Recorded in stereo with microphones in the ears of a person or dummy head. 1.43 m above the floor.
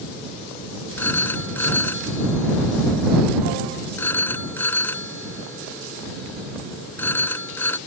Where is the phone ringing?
15° left (ahead or behind).